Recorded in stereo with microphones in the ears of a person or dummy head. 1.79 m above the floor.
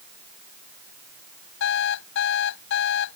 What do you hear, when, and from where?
1.6 s an alarm clock: 70° left (ahead or behind)